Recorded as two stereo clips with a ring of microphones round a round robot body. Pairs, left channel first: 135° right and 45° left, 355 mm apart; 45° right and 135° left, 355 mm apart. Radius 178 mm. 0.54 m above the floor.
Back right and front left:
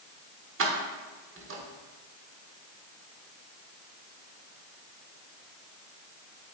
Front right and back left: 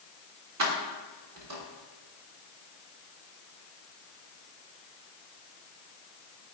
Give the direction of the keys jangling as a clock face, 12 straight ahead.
9 o'clock.